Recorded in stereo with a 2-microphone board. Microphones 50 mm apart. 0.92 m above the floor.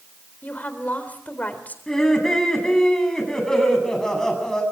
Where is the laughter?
10° left (ahead or behind), 8.5 m.